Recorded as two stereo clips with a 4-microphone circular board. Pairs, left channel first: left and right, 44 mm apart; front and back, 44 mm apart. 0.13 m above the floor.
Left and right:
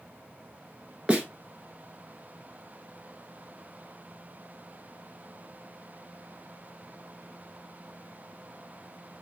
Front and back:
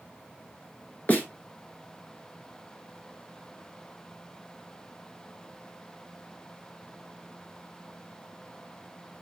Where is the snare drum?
35° right, 1.3 m.